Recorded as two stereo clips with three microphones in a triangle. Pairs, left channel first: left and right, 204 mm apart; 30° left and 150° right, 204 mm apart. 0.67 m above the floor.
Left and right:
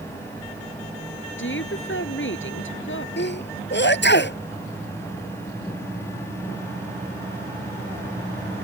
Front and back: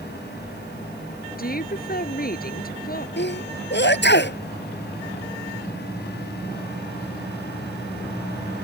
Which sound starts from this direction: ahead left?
A sneeze, at 3.2 s.